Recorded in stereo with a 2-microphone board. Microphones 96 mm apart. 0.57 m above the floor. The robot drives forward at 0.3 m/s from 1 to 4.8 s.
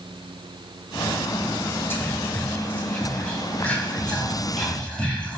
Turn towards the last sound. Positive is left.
turn(degrees=10)  # may be behind; listen again after turning